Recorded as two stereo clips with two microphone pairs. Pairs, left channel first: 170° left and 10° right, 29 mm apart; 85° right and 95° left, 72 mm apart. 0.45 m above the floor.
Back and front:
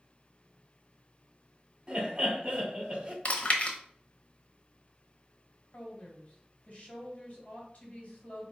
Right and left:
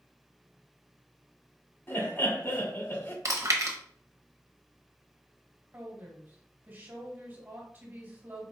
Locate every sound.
1.9 s laughter: 55° right, 1.7 m
3.2 s chewing: 130° left, 0.9 m
5.7 s a woman speaking: 145° left, 2.0 m